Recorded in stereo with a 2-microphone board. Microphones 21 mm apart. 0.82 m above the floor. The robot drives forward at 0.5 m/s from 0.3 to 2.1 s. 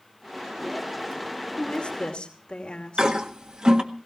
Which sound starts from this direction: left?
A woman speaking, at 1.6 s.